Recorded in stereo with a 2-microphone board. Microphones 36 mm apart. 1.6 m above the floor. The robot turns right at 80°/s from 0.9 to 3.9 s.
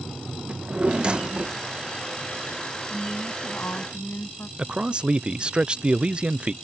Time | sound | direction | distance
0.5 | a drawer | 25° right (ahead or behind) | ?
2.9 | a woman speaking | 10° left | ?
4.6 | a man speaking | 30° right (ahead or behind) | ?